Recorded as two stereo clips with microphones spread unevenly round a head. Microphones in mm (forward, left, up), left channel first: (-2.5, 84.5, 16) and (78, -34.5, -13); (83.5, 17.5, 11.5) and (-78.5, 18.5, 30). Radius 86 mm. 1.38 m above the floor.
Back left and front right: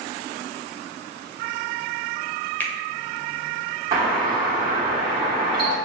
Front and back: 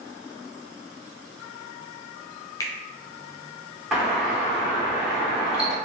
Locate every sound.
2.6 s a finger snap: 70° left, 0.6 m
3.9 s a doorbell: 90° right, 1.2 m